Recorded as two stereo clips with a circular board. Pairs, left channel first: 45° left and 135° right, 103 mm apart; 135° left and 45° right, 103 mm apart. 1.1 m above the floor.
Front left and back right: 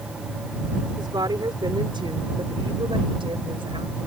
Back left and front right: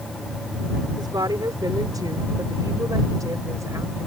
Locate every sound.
1.0 s a woman speaking: 90° right; by 4.1 s 105° right